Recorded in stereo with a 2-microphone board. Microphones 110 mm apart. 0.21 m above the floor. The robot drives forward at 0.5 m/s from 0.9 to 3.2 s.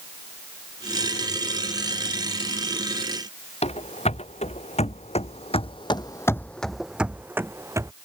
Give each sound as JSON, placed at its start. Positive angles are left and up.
{"t": 3.6, "sound": "running footsteps", "side_deg": 75}